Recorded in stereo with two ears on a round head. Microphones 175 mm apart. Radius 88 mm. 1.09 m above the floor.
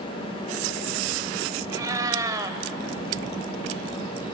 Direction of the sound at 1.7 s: 20° right (ahead or behind).